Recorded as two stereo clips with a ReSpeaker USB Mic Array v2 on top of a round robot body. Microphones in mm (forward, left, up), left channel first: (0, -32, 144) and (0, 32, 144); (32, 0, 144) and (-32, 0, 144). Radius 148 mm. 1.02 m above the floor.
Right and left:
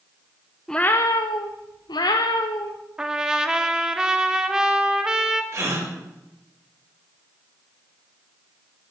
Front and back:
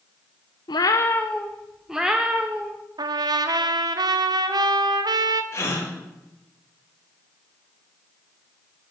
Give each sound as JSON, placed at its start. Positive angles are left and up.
{"t": 0.7, "sound": "a cat meowing", "azimuth_deg": -5, "distance_m": 0.6}
{"t": 3.0, "sound": "a trumpet", "azimuth_deg": 170, "distance_m": 1.1}
{"t": 5.5, "sound": "a gasp", "azimuth_deg": 45, "distance_m": 4.0}